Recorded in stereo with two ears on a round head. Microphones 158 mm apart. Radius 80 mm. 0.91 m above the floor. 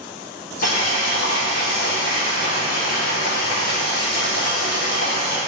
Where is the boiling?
60° left (ahead or behind), 3 m.